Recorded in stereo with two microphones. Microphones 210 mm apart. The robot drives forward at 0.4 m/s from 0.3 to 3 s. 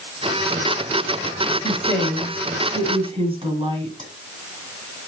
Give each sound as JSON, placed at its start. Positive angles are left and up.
{"t": 1.6, "sound": "a woman speaking", "side_deg": -25, "distance_m": 1.6}